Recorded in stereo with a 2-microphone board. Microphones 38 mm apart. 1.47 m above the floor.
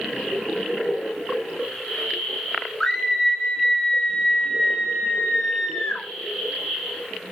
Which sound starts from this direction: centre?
A scream, at 2.8 s.